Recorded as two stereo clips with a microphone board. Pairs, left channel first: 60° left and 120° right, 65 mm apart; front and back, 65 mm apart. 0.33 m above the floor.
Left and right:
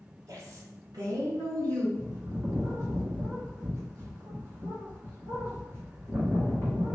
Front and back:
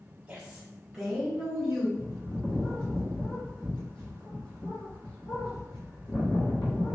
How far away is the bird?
About 2.0 m.